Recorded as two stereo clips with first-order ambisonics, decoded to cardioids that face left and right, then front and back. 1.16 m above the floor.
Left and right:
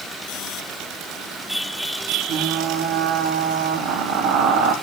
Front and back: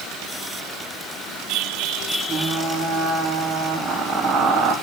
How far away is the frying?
About 2.5 m.